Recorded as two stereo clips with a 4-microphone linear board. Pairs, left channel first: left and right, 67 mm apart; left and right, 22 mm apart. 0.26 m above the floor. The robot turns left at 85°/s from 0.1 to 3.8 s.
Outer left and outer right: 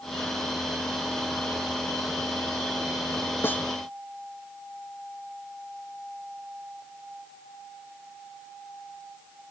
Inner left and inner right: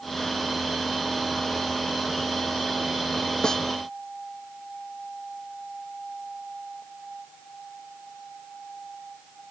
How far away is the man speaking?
I don't hear a man speaking.